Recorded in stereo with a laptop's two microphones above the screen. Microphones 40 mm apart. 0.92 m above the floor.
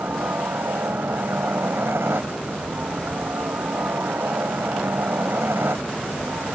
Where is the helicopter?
70° right (ahead or behind).